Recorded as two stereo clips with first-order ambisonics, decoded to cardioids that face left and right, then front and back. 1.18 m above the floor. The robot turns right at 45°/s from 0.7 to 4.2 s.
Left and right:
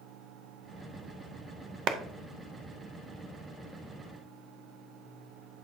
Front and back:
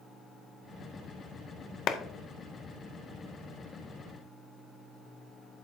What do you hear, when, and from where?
1.9 s a clap: 50° right, 0.6 m; by 2.0 s 45° right, 0.6 m